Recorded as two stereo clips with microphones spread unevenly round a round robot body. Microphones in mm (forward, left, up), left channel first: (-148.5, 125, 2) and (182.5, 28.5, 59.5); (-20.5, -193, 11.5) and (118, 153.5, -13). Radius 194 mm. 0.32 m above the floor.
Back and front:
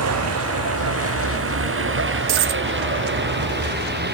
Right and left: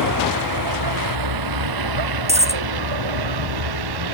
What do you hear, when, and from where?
0.0 s a vehicle: 30° left; by 4.2 s 45° left
2.3 s a dropped coin: 5° right